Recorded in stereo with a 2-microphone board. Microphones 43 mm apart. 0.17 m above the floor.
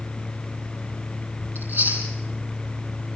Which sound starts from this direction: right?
Chewing, at 1.6 s.